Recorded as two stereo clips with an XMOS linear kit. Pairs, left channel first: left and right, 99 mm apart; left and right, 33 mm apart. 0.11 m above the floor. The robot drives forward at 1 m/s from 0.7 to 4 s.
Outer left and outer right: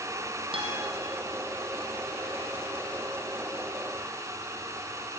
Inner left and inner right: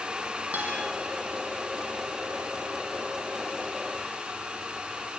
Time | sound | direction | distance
0.5 | a guitar | 70° right (ahead or behind) | 4.5 m